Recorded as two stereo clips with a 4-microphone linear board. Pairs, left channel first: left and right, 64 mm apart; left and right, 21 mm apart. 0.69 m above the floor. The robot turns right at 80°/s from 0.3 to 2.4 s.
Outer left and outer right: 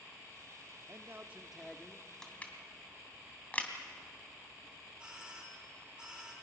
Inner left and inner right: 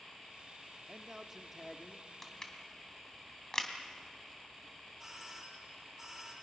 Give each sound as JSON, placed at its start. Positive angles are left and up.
{"t": 0.9, "sound": "a man speaking", "azimuth_deg": -60, "distance_m": 1.1}
{"t": 2.2, "sound": "crushing", "side_deg": 10, "distance_m": 2.5}
{"t": 5.0, "sound": "a doorbell", "side_deg": -15, "distance_m": 3.5}